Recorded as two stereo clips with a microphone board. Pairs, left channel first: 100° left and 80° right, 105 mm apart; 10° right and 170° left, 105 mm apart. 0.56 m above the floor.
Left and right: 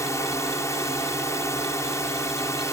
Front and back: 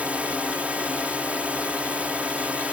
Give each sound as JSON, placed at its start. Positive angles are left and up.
{"t": 0.0, "sound": "a drone", "azimuth_deg": 105}